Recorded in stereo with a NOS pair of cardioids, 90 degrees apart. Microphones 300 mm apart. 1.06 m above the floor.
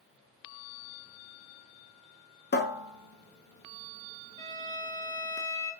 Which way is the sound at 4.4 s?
15° left.